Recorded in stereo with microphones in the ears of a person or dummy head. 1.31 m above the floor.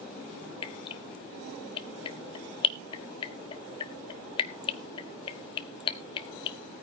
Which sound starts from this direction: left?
Dripping, at 0.6 s.